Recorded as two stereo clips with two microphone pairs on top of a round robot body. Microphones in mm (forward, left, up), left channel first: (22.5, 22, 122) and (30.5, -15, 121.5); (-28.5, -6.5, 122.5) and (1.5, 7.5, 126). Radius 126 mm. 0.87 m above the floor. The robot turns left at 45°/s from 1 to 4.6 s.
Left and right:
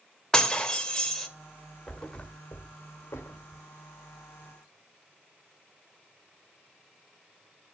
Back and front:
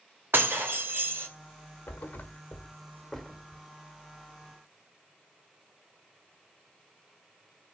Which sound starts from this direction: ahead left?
Breaking glass, at 0.3 s.